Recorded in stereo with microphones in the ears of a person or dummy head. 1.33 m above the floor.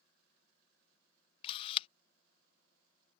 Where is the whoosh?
No whoosh in this recording.